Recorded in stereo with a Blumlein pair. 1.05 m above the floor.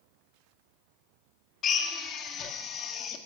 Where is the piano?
I don't hear a piano.